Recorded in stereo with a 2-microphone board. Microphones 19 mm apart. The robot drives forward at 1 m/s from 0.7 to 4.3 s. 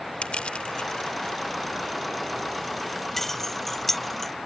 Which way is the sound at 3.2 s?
15° left (ahead or behind).